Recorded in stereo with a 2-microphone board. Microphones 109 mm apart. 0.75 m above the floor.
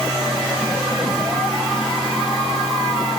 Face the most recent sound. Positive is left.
No sound to turn to.